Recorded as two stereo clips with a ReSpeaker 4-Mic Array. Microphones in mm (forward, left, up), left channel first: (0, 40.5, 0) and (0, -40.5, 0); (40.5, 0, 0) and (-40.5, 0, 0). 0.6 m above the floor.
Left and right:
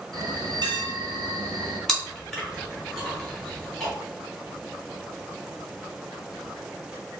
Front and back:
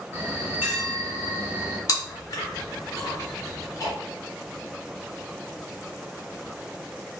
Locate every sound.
0.1 s a bell: 115° right, 0.9 m
1.9 s chewing: 10° left, 1.0 m